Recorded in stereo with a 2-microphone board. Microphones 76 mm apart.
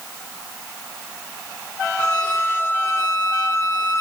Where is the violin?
20° left (ahead or behind), 1.5 m.